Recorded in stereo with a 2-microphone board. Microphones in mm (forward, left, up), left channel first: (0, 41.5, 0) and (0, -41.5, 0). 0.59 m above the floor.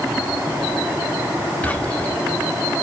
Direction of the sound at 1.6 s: 15° left (ahead or behind).